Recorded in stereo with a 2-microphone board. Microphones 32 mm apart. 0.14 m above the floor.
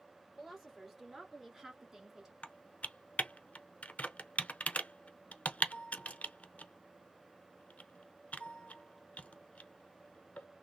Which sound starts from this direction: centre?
A woman speaking, at 0.4 s.